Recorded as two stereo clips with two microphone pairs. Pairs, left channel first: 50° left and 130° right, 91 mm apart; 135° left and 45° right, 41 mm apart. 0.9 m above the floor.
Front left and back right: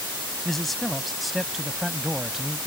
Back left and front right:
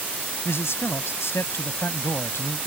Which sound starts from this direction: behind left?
A man speaking, at 0.5 s.